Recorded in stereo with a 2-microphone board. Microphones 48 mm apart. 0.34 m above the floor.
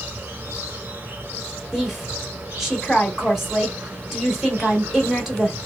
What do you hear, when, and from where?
0.0 s an insect: 40° right (ahead or behind), 1.3 m
1.7 s a woman speaking: 5° right (ahead or behind), 1.2 m